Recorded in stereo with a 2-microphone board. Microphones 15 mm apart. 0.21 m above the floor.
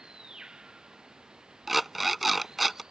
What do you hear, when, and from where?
0.0 s running water: 60° right (ahead or behind)
1.7 s an alarm clock: 5° right (ahead or behind)